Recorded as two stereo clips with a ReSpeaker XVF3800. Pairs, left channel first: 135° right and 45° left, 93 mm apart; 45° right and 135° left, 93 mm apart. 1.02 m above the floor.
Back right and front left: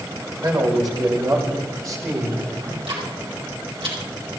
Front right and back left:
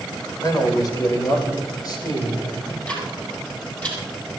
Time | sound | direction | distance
0.4 | a man speaking | straight ahead | 4 m
2.6 | ticking | 30° left | 5.5 m